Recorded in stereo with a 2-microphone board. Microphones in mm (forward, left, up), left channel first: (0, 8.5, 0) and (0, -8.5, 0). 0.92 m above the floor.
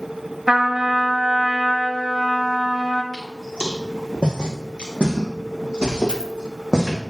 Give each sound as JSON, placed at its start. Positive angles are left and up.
{"t": 0.5, "sound": "a trumpet", "side_deg": -25, "distance_m": 1.0}
{"t": 3.1, "sound": "footsteps", "side_deg": 65, "distance_m": 3.5}
{"t": 6.1, "sound": "a dropped coin", "side_deg": 60, "distance_m": 2.0}